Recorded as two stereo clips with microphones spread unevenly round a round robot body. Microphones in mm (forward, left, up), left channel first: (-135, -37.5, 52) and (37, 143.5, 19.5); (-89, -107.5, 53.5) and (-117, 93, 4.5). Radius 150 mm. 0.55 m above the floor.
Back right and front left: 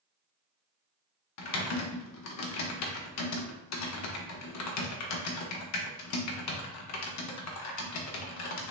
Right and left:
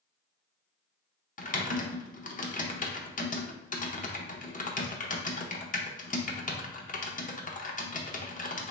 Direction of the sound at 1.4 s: 140° right.